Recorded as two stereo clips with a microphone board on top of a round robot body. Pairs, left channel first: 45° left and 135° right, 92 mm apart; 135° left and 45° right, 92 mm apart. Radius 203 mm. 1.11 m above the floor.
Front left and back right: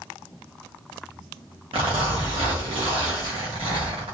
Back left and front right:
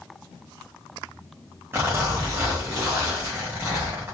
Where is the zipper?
110° right, 0.6 m.